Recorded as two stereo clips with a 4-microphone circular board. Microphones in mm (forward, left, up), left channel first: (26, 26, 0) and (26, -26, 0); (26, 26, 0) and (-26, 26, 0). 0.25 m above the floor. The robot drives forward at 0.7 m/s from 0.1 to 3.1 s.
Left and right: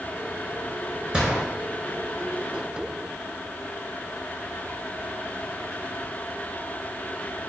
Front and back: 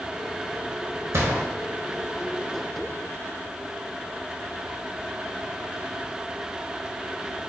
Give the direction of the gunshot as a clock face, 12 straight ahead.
5 o'clock.